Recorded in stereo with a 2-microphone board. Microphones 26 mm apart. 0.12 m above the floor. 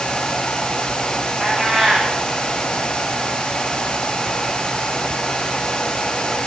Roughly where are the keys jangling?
No keys jangling in this recording.